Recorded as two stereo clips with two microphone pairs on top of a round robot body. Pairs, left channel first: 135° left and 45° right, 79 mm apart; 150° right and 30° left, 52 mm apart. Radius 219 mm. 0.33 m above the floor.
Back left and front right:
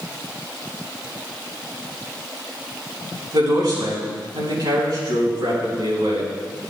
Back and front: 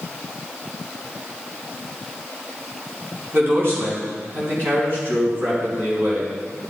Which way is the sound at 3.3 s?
15° right.